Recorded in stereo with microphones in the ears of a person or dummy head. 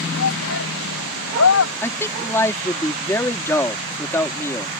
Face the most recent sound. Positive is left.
turn(degrees=10)  # may be behind; listen again after turning